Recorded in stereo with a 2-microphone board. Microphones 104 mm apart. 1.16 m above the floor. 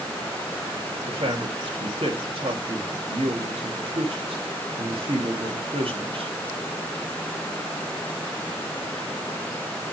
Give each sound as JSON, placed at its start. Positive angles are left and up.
{"t": 1.1, "sound": "a man speaking", "side_deg": -60, "distance_m": 1.8}